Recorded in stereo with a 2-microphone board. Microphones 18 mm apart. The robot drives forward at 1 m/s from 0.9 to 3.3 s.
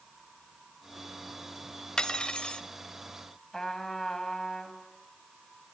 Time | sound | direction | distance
2.0 | cutlery clinking | 45° left (ahead or behind) | 1.1 m
3.5 | a trumpet | 25° left (ahead or behind) | 2 m